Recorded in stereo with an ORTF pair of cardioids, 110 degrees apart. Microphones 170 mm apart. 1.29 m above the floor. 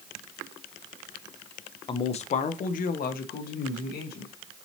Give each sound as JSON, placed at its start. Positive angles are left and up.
{"t": 1.9, "sound": "a man speaking", "azimuth_deg": 30, "distance_m": 0.6}